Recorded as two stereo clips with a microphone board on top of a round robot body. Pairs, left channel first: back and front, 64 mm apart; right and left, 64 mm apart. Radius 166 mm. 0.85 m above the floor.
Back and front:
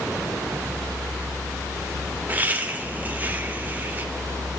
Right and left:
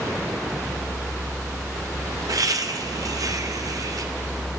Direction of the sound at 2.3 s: 65° left.